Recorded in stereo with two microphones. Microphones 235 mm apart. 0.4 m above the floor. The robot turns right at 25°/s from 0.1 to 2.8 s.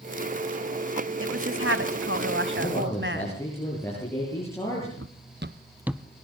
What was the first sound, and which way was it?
A woman speaking, 100° right.